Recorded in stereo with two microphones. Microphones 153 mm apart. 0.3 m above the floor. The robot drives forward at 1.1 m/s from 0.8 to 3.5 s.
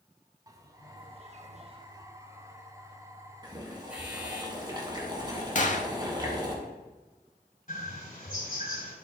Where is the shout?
I don't hear a shout.